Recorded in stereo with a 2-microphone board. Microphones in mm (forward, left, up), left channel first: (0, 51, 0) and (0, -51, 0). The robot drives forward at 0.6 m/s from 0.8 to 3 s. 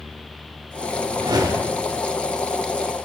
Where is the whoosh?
45° right (ahead or behind), 0.5 m; by 1.9 s 25° right (ahead or behind), 0.9 m.